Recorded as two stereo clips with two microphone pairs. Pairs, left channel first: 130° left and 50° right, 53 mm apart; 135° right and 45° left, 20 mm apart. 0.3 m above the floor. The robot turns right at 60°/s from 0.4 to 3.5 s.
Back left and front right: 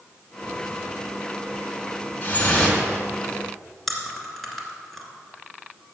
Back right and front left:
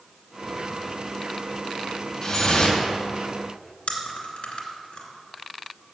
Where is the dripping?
160° left, 2 m; by 2.8 s 165° right, 2 m.